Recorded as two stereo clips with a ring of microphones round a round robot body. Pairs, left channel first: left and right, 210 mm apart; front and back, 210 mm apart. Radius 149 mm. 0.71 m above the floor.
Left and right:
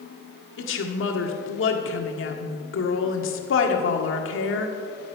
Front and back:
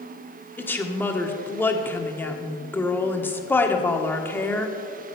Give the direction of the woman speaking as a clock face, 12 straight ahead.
9 o'clock.